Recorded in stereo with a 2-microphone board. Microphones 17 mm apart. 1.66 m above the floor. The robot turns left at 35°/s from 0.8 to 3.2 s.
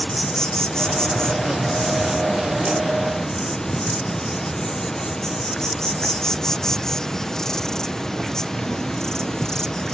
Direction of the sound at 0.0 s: 130° left.